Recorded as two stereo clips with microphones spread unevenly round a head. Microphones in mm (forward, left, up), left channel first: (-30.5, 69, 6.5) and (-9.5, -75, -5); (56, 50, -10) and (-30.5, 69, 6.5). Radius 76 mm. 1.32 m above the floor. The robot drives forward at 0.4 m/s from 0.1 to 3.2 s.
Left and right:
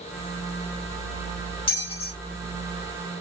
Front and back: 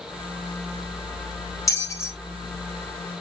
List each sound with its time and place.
1.7 s a bell: 45° left, 1.7 m; by 2.1 s 50° left, 1.6 m